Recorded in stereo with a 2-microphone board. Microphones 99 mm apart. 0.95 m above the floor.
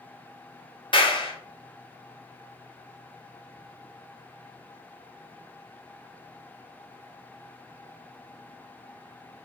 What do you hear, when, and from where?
0.9 s a clap: 55° left (ahead or behind), 1.1 m